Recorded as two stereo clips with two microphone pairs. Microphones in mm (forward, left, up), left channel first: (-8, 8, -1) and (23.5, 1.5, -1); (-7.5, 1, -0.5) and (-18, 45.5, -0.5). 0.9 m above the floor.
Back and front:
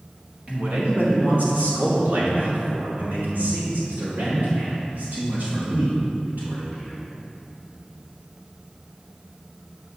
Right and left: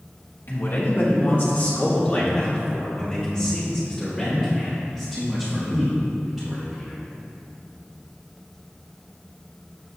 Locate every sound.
0.5 s a man speaking: 55° right, 1.9 m; by 7.0 s 15° left, 5.5 m